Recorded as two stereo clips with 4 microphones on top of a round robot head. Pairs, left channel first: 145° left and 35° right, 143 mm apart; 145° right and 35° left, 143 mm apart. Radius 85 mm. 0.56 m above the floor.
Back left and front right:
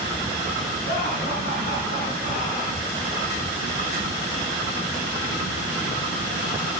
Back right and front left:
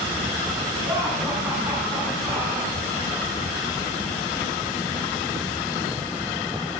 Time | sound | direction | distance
0.8 | laughter | 115° left | 6.5 m